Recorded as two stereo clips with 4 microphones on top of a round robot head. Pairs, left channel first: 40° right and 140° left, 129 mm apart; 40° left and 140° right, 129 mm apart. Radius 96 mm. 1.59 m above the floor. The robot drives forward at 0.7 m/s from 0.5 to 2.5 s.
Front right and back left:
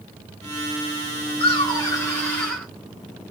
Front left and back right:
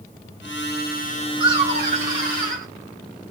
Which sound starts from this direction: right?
Laughter, at 1.4 s.